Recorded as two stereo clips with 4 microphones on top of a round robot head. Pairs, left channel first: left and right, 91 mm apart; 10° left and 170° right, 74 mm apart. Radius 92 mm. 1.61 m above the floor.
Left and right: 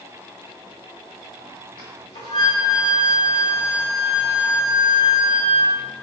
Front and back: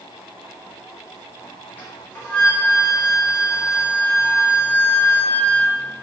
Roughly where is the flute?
Ahead left.